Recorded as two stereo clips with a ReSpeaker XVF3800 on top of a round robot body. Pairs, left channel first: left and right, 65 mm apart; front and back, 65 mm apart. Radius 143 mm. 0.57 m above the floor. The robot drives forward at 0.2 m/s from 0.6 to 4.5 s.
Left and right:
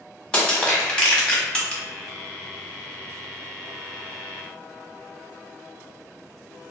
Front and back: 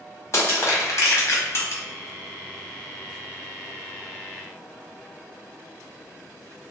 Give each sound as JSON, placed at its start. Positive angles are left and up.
{"t": 0.3, "sound": "crushing", "azimuth_deg": 15, "distance_m": 1.4}